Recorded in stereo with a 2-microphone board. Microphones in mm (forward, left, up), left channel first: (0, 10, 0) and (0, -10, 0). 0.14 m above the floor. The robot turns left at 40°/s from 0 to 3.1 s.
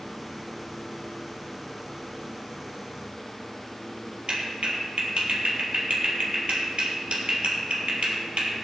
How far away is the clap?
About 3 m.